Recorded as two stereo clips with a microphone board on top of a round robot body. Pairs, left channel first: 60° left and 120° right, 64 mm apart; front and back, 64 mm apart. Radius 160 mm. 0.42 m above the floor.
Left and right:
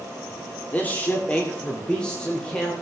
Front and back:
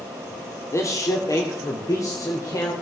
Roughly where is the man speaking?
Ahead.